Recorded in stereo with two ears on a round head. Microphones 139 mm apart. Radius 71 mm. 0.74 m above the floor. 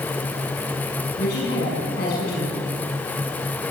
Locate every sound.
1.2 s a woman speaking: 70° left (ahead or behind), 7.5 m